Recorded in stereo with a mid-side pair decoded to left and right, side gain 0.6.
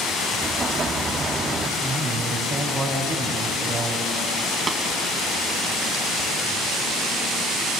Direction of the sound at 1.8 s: 50° right.